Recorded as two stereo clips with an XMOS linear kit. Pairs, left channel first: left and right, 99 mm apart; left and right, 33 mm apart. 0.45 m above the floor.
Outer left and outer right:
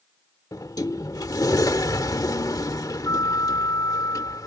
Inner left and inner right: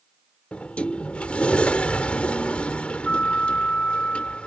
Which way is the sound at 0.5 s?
40° left (ahead or behind).